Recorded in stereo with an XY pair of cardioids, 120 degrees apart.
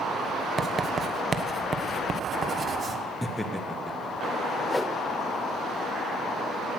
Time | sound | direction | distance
0.6 | writing | 30° right | 1.2 m
3.2 | laughter | 10° left | 1.3 m
4.7 | a whoosh | 10° left | 0.7 m